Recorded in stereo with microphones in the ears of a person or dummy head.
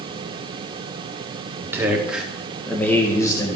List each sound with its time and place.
1.6 s a man speaking: 15° right (ahead or behind), 1.6 m; by 3.6 s 25° left (ahead or behind), 1.5 m